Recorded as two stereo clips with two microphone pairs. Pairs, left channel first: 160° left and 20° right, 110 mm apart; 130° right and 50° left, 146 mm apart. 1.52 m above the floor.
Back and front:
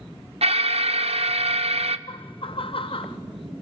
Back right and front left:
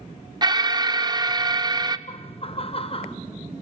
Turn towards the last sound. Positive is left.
turn(degrees=-175)